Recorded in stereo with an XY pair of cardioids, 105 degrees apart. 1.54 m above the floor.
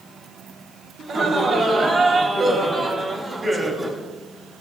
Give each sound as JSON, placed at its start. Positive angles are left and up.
{"t": 1.0, "sound": "laughter", "azimuth_deg": -50, "distance_m": 3.0}